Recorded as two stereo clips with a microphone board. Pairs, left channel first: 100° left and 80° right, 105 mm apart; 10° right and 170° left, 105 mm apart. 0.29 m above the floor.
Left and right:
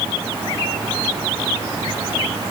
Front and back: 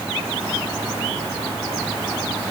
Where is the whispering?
I don't hear whispering.